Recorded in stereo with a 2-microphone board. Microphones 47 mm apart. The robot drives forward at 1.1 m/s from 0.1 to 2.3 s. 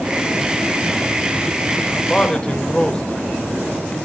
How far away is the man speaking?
About 3.5 m.